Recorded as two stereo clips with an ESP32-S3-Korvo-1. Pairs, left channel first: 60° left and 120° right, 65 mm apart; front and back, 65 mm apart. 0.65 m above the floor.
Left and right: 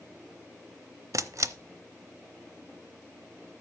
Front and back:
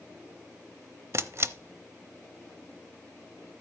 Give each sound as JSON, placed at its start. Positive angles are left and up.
{"t": 1.1, "sound": "a camera shutter", "azimuth_deg": -140, "distance_m": 0.7}